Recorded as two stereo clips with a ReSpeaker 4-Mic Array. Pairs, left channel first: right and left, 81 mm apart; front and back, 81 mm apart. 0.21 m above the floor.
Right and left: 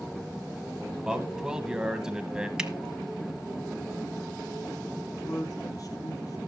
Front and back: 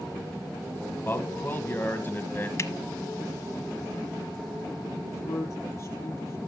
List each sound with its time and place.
1.0 s a man speaking: 20° left, 1.8 m
2.6 s a finger snap: 15° left, 1.0 m
5.1 s a man speaking: 50° right, 4.5 m